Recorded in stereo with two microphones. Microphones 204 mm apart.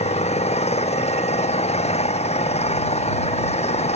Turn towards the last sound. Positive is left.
turn(degrees=30)  # may be behind; listen again after turning